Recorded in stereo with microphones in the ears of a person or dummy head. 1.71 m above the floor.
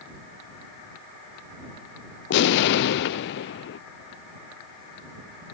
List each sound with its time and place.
2.3 s an explosion: 60° left (ahead or behind)